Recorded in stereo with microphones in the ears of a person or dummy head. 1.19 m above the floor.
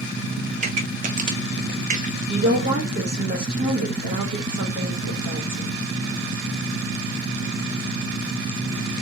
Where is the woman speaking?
60° right (ahead or behind), 1.3 m.